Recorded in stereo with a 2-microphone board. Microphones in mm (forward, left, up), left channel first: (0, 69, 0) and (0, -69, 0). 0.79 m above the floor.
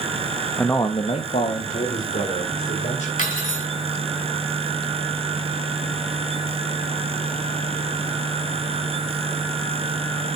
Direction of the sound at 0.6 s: Centre (ahead or behind).